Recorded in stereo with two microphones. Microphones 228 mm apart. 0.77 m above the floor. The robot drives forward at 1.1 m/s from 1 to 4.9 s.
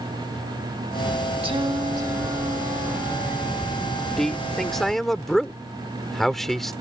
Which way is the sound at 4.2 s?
Centre (ahead or behind).